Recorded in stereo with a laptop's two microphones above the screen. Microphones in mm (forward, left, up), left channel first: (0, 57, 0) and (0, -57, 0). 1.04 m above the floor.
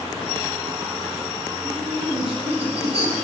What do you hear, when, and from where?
1.6 s laughter: 60° right (ahead or behind), 7.5 m; by 3.1 s 65° right (ahead or behind), 7.5 m